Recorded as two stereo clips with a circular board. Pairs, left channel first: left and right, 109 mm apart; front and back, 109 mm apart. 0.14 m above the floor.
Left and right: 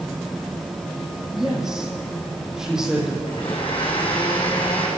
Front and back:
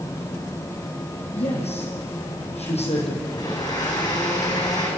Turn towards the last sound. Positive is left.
turn(degrees=50)